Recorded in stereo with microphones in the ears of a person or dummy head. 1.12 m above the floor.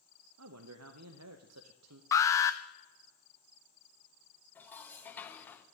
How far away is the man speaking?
About 0.6 m.